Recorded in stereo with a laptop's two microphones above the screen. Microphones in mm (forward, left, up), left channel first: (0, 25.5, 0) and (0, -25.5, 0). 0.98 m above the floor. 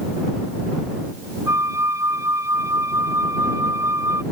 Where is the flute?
75° right (ahead or behind).